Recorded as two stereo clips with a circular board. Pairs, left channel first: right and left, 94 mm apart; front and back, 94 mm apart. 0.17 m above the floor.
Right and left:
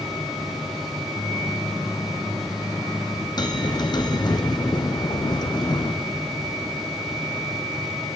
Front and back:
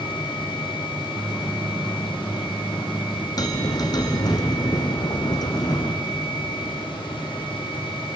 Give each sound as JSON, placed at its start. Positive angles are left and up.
{"t": 1.1, "sound": "a microwave", "azimuth_deg": -85, "distance_m": 1.0}
{"t": 3.4, "sound": "a bell", "azimuth_deg": -50, "distance_m": 1.8}